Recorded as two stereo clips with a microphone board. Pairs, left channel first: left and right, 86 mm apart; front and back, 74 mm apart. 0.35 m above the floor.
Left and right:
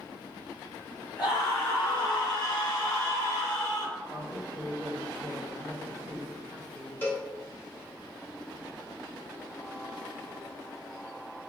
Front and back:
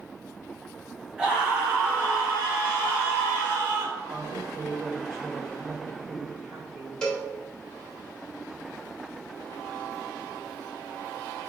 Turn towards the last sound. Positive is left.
turn(degrees=65)